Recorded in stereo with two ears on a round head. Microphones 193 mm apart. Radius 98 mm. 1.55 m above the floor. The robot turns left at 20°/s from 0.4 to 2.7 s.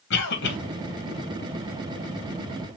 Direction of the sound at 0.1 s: 50° left (ahead or behind).